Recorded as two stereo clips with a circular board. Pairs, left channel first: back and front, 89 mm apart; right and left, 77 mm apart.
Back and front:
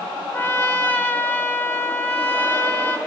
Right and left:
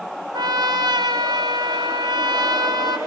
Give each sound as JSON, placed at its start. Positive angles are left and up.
{"t": 0.3, "sound": "a trumpet", "azimuth_deg": 110, "distance_m": 2.0}